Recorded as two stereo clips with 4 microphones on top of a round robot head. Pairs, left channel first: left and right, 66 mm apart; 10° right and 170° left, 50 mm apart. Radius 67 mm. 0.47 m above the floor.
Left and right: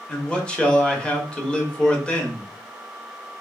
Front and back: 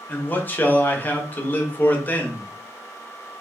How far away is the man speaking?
About 1.0 m.